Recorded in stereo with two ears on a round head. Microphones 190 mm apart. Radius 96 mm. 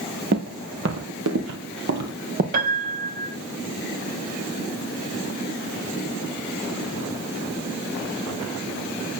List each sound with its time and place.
0.3 s footsteps: 50° right (ahead or behind), 3 m; by 2.4 s 45° right (ahead or behind), 2.5 m
2.5 s a piano: 45° right (ahead or behind), 2 m